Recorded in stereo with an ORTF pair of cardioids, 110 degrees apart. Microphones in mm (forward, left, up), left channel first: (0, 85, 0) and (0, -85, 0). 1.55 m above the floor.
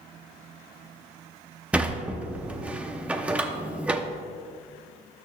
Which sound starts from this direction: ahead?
A sliding door, at 1.7 s.